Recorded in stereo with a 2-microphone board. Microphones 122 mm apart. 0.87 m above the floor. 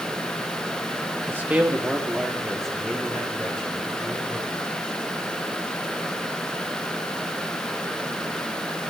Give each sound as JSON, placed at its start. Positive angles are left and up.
{"t": 1.3, "sound": "a man speaking", "side_deg": -20, "distance_m": 1.2}